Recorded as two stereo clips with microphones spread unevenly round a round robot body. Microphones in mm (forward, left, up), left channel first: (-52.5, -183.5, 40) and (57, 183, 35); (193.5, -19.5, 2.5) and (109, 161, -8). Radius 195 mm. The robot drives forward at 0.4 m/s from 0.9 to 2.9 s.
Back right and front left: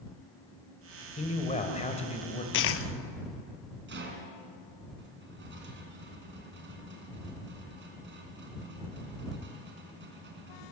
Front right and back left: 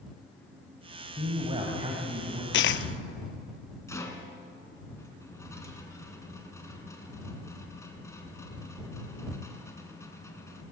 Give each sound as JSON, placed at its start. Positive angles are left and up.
{"t": 1.2, "sound": "a man speaking", "azimuth_deg": -175, "distance_m": 2.0}
{"t": 2.5, "sound": "a dropped coin", "azimuth_deg": -45, "distance_m": 0.8}
{"t": 3.9, "sound": "a rattle", "azimuth_deg": 10, "distance_m": 3.5}